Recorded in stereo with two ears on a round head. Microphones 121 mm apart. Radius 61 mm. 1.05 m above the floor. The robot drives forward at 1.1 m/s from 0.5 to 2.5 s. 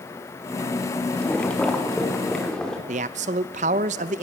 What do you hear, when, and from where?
1.1 s boiling: 10° left (ahead or behind), 2 m; by 2.8 s 5° left (ahead or behind), 3.5 m
2.9 s a man speaking: 55° right (ahead or behind), 0.7 m